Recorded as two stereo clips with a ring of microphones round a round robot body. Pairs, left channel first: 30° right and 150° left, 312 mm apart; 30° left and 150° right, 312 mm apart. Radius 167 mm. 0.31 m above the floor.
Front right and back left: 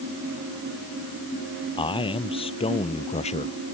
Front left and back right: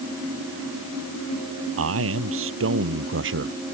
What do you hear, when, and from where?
1.8 s a man speaking: 105° right; by 3.6 s 100° right